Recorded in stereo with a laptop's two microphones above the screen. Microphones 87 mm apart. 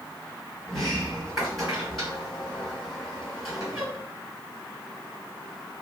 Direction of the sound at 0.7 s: Centre (ahead or behind).